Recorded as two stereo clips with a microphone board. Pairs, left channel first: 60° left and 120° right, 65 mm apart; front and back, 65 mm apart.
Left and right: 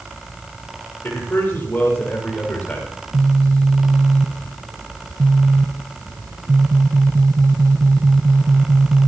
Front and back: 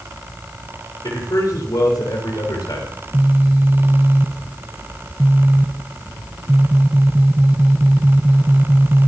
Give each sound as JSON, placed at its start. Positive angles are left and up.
{"t": 1.0, "sound": "a man speaking", "azimuth_deg": 5, "distance_m": 6.5}
{"t": 2.9, "sound": "a phone buzzing", "azimuth_deg": -120, "distance_m": 1.0}